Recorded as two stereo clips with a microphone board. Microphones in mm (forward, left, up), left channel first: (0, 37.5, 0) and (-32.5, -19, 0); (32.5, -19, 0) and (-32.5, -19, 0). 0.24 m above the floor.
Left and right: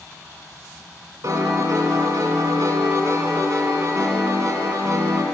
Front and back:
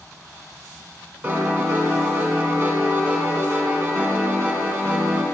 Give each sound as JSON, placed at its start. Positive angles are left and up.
{"t": 1.2, "sound": "a piano", "azimuth_deg": -130, "distance_m": 2.0}